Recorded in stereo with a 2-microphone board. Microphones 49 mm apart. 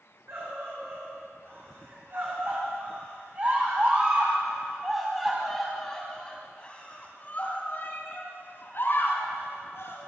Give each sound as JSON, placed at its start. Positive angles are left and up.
{"t": 0.3, "sound": "a scream", "side_deg": -60, "distance_m": 5.5}